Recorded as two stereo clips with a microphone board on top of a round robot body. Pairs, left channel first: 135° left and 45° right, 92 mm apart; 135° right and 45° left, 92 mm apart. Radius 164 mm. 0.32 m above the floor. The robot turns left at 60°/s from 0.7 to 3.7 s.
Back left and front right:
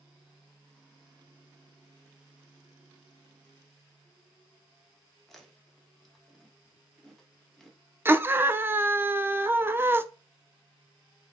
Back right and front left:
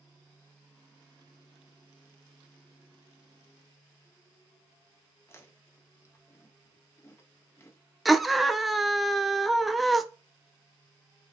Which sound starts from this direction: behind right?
Chewing, at 5.3 s.